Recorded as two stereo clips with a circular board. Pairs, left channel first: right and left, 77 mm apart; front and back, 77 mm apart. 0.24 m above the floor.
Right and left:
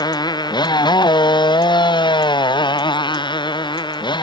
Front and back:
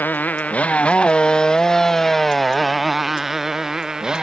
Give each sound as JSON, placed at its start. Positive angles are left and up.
{"t": 0.0, "sound": "a motorcycle", "azimuth_deg": -65}